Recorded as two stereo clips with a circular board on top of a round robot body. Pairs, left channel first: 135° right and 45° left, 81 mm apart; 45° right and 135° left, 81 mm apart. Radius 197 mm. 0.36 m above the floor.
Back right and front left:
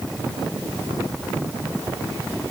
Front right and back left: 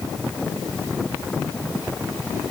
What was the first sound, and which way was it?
Only background noise.